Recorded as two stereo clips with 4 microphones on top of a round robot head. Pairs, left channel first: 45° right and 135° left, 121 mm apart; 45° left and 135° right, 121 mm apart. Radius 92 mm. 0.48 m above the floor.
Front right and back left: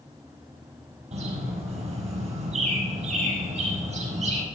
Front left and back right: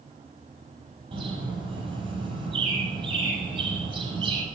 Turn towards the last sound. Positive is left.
turn(degrees=170)